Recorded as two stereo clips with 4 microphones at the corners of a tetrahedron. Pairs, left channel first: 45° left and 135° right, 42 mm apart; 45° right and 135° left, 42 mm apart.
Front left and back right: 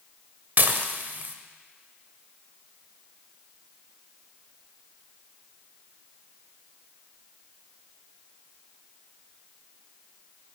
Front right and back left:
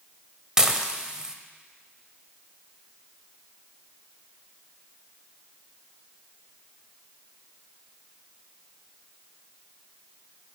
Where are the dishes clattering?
155° right, 0.8 m.